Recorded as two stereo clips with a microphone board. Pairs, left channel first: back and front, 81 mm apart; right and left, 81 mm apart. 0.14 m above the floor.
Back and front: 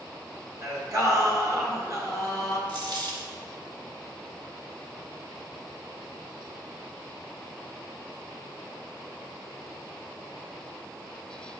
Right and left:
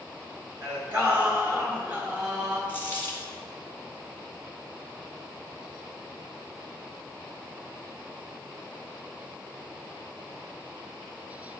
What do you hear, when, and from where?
0.6 s singing: 30° left, 1.7 m
2.7 s a dropped coin: 25° right, 2.0 m